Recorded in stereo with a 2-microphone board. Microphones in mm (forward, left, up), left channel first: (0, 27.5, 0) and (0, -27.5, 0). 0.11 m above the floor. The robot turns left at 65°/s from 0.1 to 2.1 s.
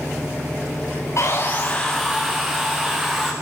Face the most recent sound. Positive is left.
turn(degrees=-5)